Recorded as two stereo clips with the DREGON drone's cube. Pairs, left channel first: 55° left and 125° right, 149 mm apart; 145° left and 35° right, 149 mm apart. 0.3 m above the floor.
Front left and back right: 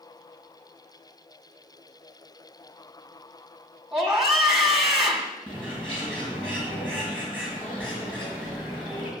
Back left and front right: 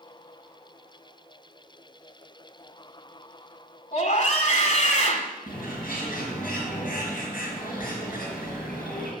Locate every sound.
3.9 s a scream: 145° left, 2 m
5.5 s a bird: 140° left, 4.5 m